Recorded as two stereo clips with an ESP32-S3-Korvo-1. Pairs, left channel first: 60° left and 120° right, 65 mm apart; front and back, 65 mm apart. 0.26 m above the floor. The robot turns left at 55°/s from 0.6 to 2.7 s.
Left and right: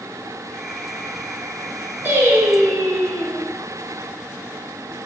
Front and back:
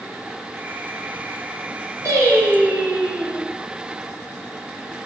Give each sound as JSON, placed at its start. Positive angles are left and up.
{"t": 2.0, "sound": "singing", "azimuth_deg": -170, "distance_m": 2.5}